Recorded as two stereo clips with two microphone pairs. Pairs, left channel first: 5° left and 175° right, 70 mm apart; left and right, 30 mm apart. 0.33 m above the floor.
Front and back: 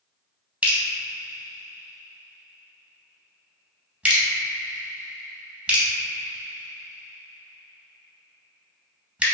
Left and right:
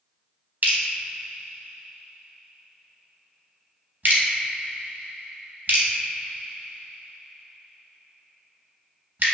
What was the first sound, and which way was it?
Dripping, 105° right.